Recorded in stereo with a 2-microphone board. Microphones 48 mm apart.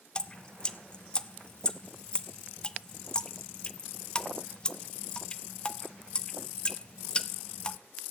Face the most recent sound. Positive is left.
turn(degrees=20)  # may be behind; listen again after turning